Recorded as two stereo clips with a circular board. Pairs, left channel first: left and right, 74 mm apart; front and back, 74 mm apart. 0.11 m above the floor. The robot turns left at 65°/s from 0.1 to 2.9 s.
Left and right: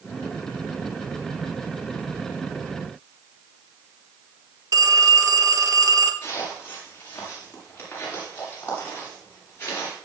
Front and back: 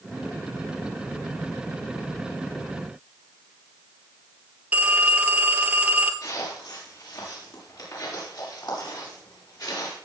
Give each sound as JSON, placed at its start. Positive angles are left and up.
{"t": 4.7, "sound": "a phone ringing", "azimuth_deg": -115, "distance_m": 1.3}
{"t": 6.2, "sound": "footsteps", "azimuth_deg": 30, "distance_m": 8.0}